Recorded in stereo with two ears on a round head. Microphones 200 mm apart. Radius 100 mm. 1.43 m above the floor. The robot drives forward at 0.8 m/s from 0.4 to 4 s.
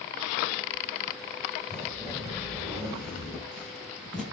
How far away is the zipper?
About 10 m.